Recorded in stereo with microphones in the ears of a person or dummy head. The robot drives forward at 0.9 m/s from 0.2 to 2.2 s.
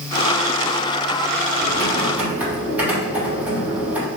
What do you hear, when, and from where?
1.6 s typing on a keyboard: 5° right (ahead or behind), 3 m